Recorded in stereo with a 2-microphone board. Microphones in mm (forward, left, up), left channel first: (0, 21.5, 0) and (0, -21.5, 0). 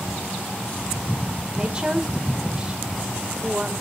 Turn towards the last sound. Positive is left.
turn(degrees=-25)  # may be behind; listen again after turning